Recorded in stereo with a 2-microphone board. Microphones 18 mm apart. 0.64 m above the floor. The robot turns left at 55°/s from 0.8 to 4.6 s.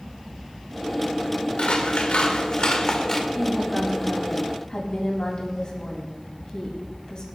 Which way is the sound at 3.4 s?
155° right.